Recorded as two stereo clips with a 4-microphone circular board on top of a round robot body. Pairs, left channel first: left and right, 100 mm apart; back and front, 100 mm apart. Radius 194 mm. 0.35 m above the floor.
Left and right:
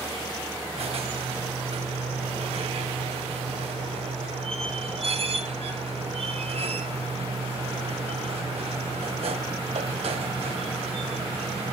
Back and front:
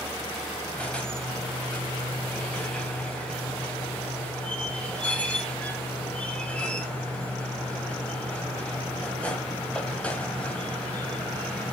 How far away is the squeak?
About 1.8 m.